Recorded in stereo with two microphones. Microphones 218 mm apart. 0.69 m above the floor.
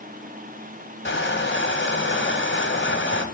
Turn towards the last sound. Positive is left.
turn(degrees=60)  # may be behind; listen again after turning